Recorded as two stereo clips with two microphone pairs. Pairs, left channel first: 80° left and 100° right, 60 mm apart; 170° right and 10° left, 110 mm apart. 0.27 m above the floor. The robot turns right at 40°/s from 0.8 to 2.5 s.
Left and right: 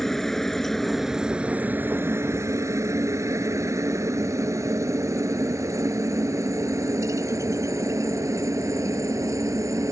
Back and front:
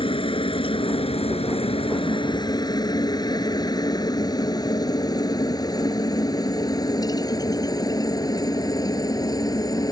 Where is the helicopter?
165° left; by 9.9 s 120° right.